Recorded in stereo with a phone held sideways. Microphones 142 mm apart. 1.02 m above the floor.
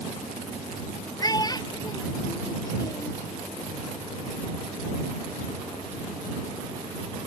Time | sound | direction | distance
1.2 | a child speaking | 30° left (ahead or behind) | ?